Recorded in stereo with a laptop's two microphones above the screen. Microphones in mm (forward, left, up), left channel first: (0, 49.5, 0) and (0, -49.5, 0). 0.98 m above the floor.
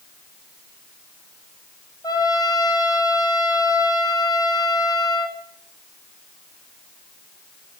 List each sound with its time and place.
2.0 s a trumpet: 40° left (ahead or behind), 5.5 m